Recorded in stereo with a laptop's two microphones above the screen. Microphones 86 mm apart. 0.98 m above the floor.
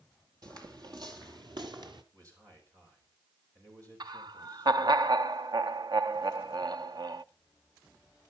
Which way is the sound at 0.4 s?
50° right (ahead or behind).